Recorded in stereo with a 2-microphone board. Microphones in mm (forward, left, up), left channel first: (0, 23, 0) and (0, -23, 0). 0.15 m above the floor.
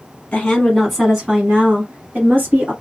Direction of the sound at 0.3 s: 25° left (ahead or behind).